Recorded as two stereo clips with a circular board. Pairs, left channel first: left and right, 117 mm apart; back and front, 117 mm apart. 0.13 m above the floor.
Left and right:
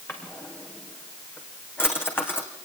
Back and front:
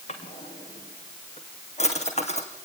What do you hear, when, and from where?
0.1 s a drawer: 160° left, 3 m